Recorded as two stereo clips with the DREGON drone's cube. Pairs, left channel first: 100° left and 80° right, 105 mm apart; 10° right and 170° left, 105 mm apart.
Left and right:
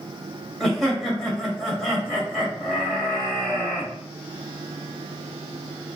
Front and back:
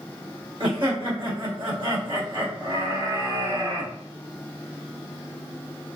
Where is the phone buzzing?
I don't hear a phone buzzing.